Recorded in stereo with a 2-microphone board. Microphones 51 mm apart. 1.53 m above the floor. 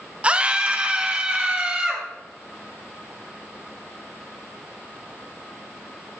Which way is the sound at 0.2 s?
25° right (ahead or behind).